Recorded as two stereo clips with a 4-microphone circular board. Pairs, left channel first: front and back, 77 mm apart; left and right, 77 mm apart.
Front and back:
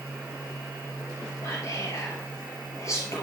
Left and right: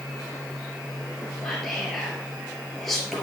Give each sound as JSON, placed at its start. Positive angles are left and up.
{"t": 1.4, "sound": "whispering", "azimuth_deg": 5, "distance_m": 2.5}